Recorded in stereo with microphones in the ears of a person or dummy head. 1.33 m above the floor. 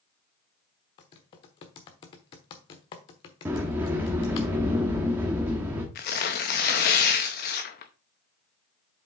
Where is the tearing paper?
30° left (ahead or behind), 0.7 m.